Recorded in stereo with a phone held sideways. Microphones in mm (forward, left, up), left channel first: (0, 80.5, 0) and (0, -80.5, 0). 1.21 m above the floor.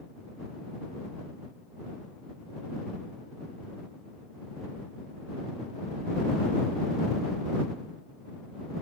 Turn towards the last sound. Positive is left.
No sound to turn to.